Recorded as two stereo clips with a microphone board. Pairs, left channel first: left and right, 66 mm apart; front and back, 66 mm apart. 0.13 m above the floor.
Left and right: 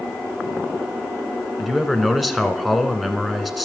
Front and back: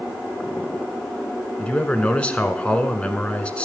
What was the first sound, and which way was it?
A man speaking, 5° right.